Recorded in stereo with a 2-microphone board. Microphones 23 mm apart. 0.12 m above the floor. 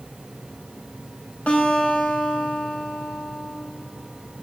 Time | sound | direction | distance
1.5 | a guitar | 80° left | 5 m